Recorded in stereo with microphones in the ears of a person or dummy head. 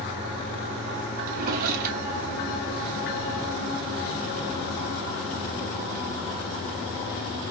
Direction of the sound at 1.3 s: 50° right (ahead or behind).